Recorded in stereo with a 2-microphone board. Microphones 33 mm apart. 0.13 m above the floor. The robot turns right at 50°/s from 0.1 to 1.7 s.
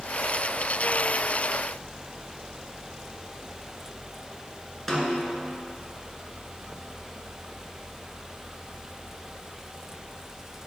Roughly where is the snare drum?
Centre.